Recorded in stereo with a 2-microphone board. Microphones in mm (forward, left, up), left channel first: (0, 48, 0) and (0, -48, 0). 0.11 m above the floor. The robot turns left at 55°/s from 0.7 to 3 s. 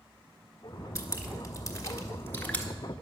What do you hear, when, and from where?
0.9 s dripping: 30° left (ahead or behind), 1.2 m; by 2.6 s 10° left (ahead or behind), 1.2 m